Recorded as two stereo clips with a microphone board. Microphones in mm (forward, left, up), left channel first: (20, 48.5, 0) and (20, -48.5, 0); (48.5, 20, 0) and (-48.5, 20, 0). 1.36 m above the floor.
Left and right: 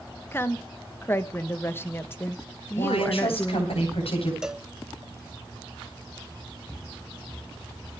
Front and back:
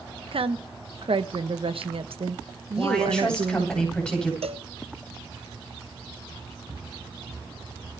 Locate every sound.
0.3 s a woman speaking: 155° left, 1.2 m
2.8 s a woman speaking: 80° left, 9 m
4.4 s a cowbell: 175° right, 0.7 m
6.7 s footsteps: 165° right, 2 m; by 7.9 s 140° left, 1.5 m